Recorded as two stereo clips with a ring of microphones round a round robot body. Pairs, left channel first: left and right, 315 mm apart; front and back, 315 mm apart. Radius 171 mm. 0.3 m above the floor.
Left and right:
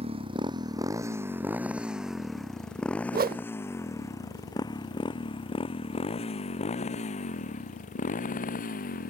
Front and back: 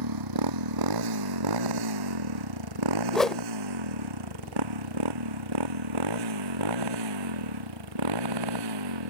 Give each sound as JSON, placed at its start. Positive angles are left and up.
{"t": 0.0, "sound": "a motorcycle", "azimuth_deg": -165}
{"t": 3.1, "sound": "a whoosh", "azimuth_deg": -85}